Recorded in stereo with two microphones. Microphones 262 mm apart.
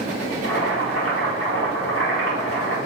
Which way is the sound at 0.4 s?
55° left (ahead or behind).